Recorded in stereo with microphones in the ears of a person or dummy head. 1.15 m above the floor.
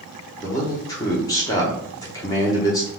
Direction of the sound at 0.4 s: 20° left (ahead or behind).